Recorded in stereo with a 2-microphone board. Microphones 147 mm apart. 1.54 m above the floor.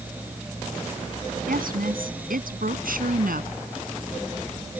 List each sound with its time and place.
1.5 s a woman speaking: 85° right; by 3.5 s 80° right